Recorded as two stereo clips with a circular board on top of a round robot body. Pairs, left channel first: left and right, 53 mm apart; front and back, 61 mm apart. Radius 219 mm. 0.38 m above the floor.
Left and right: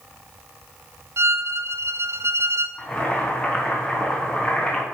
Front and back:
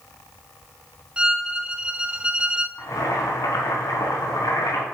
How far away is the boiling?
About 3.5 m.